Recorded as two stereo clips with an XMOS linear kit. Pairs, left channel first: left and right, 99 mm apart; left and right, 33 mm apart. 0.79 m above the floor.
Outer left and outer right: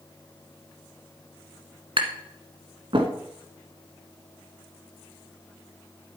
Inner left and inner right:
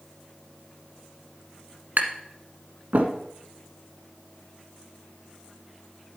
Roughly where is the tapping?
Right.